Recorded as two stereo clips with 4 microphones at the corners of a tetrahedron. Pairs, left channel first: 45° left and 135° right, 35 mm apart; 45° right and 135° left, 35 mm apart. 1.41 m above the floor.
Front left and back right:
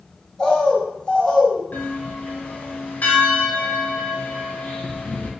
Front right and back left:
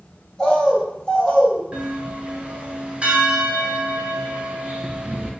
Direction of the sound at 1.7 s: 80° left.